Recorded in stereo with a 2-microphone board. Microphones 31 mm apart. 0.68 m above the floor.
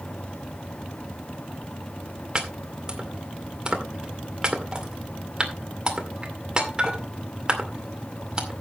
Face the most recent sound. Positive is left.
turn(degrees=-25)  # may be behind; listen again after turning